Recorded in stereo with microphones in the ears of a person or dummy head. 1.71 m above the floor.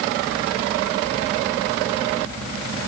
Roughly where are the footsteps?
I don't hear footsteps.